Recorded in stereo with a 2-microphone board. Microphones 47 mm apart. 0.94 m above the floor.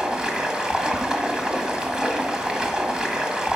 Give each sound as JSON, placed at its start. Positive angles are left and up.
{"t": 0.0, "sound": "running water", "side_deg": -15, "distance_m": 1.4}